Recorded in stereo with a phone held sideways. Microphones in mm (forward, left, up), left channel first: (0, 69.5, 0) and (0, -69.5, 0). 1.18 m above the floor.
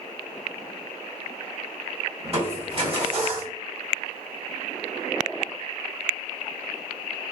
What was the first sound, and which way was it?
Crushing, 45° right (ahead or behind).